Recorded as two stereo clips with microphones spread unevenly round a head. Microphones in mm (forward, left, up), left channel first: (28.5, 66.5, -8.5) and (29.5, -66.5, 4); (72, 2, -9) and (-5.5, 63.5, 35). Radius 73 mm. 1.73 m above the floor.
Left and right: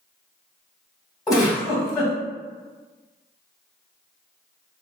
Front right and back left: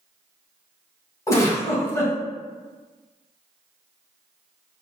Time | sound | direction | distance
1.3 | a giggle | 25° left | 1.7 m